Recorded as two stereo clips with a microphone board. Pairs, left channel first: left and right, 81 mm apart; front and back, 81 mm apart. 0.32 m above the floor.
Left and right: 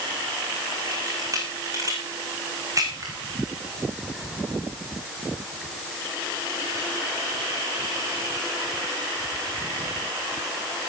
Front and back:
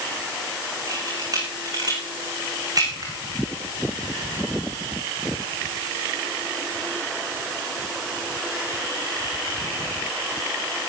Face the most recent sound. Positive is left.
turn(degrees=-140)